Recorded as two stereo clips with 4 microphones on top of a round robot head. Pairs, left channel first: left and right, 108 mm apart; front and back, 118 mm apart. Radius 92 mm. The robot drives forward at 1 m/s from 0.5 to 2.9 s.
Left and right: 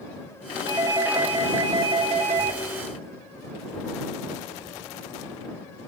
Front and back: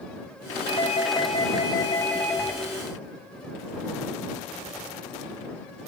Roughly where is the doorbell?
Ahead right.